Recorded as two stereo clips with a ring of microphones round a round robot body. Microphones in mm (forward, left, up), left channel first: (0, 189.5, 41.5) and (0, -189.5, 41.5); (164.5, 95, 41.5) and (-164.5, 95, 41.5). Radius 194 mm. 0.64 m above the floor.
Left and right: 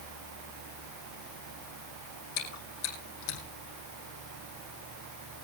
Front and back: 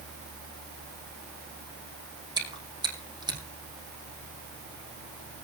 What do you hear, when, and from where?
2.4 s chewing: 105° left, 4.5 m